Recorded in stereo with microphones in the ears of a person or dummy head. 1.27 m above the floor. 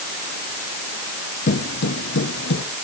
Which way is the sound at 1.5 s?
50° left (ahead or behind).